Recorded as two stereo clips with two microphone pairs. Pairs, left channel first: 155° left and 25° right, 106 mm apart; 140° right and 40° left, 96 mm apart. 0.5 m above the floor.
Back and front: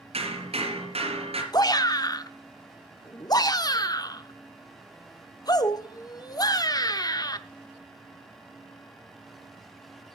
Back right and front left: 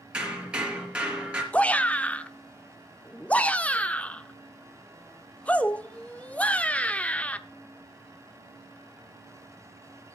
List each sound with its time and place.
0.1 s hammering: 40° right, 3.5 m
1.5 s a shout: 155° left, 0.8 m